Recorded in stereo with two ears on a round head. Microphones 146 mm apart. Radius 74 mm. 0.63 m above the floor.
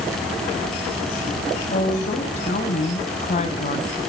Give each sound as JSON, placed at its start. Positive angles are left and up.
{"t": 1.7, "sound": "a woman speaking", "side_deg": 40, "distance_m": 4.0}